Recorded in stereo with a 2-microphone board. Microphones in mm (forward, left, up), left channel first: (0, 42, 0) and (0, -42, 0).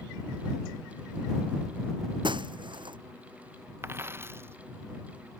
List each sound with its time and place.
2.2 s breaking glass: 70° right (ahead or behind)
3.8 s a dropped coin: 30° right (ahead or behind)